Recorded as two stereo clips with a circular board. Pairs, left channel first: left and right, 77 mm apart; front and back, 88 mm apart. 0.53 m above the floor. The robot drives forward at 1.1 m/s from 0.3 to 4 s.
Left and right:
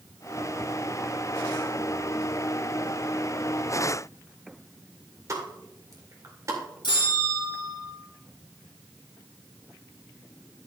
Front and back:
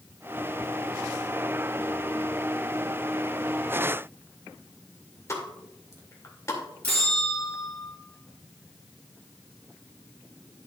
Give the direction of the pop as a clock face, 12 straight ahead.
2 o'clock.